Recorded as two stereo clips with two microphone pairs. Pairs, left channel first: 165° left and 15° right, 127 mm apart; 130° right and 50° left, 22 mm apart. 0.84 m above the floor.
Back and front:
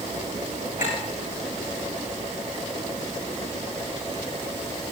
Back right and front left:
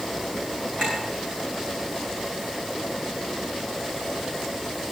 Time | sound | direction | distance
0.8 | a clink | 165° left | 9 m